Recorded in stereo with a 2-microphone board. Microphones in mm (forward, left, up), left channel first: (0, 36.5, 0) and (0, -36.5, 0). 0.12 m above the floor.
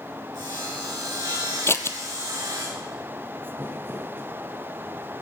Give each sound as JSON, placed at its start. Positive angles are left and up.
{"t": 0.3, "sound": "sawing", "side_deg": -85, "distance_m": 5.5}
{"t": 1.7, "sound": "scissors", "side_deg": 40, "distance_m": 0.7}
{"t": 3.6, "sound": "crumpling", "side_deg": -35, "distance_m": 2.0}